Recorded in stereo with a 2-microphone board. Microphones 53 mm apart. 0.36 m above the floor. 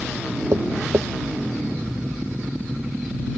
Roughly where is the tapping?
Right.